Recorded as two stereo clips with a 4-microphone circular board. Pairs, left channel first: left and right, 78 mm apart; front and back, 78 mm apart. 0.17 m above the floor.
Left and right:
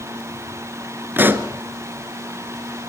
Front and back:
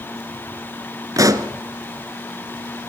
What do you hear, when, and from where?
1.2 s a pop: 150° right, 1.5 m